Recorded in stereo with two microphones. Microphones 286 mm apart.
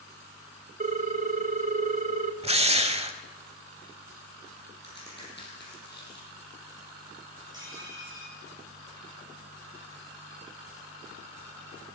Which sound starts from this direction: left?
A crack, at 4.8 s.